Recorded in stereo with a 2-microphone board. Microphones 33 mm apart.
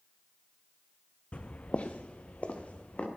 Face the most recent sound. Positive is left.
turn(degrees=40)  # may be behind; listen again after turning